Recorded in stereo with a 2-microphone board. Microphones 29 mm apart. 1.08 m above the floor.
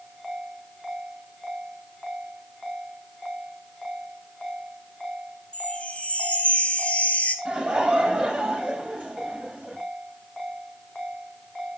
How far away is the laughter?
About 6 m.